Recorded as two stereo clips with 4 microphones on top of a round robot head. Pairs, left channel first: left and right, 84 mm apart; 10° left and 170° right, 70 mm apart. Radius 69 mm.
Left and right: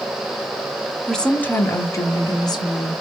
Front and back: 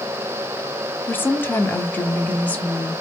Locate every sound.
1.1 s a woman speaking: 5° left, 0.9 m; by 2.9 s 80° left, 1.7 m